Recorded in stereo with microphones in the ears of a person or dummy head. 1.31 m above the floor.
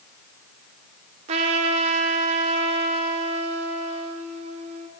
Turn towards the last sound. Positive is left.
turn(degrees=-30)  # may be behind; listen again after turning